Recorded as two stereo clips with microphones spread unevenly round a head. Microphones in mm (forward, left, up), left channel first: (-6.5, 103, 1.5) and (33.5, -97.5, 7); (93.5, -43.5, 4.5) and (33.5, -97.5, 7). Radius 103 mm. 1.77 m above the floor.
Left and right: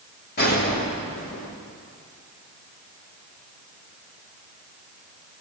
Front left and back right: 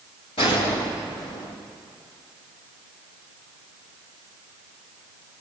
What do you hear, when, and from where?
0.4 s a gunshot: 55° left, 4.5 m